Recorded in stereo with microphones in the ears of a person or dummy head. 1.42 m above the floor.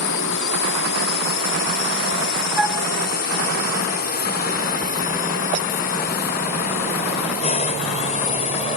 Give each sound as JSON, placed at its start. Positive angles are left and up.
{"t": 0.0, "sound": "a drone", "side_deg": 70}
{"t": 2.6, "sound": "a flute", "side_deg": -5}